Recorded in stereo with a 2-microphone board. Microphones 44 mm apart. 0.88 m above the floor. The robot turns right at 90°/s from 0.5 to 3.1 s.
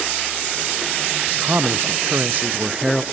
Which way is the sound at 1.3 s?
150° right.